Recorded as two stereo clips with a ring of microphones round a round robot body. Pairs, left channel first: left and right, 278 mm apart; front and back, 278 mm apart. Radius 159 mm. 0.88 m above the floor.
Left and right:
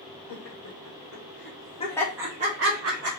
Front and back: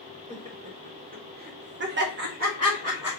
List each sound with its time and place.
0.3 s laughter: 115° left, 1.7 m; by 3.1 s 105° right, 1.0 m